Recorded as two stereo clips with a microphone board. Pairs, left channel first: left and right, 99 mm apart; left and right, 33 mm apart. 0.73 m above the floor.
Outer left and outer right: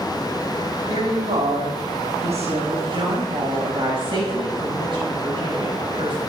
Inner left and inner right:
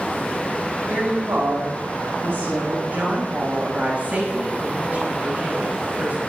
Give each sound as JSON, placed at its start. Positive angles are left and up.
{"t": 0.9, "sound": "a woman speaking", "side_deg": -70, "distance_m": 5.0}
{"t": 2.9, "sound": "a woman speaking", "side_deg": -50, "distance_m": 5.0}